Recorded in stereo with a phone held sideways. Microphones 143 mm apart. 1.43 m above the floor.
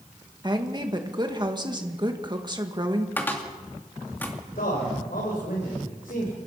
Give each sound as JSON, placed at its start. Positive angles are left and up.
{"t": 0.4, "sound": "a woman speaking", "side_deg": -30, "distance_m": 2.0}
{"t": 3.2, "sound": "a cupboard door", "side_deg": 15, "distance_m": 2.5}
{"t": 4.5, "sound": "a man speaking", "side_deg": 90, "distance_m": 5.0}